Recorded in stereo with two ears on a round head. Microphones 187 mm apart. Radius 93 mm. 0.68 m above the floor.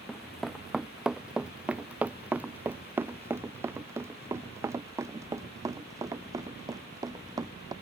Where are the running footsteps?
5° left (ahead or behind); by 7.7 s 20° right (ahead or behind).